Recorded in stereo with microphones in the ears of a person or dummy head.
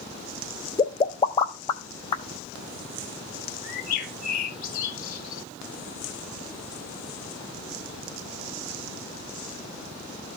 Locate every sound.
0.8 s a pop: 25° left (ahead or behind), 0.6 m
3.6 s a bird: 55° left (ahead or behind), 2.5 m